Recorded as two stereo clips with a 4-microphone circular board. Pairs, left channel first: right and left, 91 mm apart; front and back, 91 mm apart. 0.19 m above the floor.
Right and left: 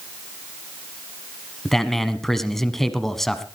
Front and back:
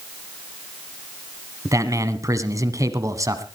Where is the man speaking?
175° right, 1.2 m.